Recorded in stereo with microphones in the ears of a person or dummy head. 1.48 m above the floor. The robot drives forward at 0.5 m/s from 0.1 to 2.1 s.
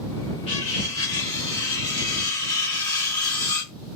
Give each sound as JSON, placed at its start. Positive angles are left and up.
{"t": 0.5, "sound": "cutlery clinking", "side_deg": 35, "distance_m": 0.9}